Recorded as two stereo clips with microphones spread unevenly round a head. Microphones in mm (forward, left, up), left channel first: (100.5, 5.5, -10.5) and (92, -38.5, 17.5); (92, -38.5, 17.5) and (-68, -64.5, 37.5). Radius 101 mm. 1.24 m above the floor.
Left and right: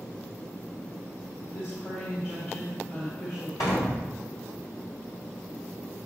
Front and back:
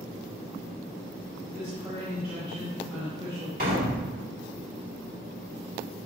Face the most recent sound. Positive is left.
turn(degrees=140)